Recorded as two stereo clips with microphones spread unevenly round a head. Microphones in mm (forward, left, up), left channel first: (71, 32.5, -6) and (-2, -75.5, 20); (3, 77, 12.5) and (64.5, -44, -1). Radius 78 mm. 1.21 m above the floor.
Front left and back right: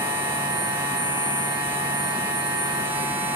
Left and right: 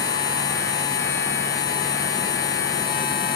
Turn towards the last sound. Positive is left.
turn(degrees=155)